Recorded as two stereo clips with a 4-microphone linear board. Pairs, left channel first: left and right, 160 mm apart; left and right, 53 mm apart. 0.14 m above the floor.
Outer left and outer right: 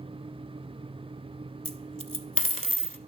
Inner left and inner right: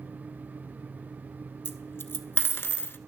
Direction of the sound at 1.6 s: 50° left (ahead or behind).